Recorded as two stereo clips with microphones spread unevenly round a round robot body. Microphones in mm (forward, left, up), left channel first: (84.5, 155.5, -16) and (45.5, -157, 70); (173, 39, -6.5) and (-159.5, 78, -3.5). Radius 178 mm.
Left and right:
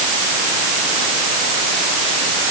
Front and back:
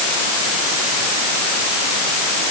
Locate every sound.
Only background noise.